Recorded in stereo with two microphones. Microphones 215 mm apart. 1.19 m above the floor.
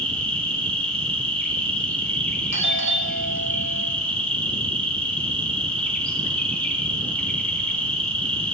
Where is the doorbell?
65° right (ahead or behind), 1.3 m.